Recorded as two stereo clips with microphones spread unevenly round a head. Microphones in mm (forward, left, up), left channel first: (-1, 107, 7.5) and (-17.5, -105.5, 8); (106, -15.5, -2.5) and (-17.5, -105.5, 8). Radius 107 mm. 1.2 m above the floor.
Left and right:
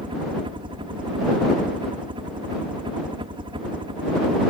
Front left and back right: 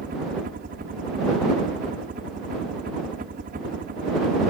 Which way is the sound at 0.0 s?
160° right.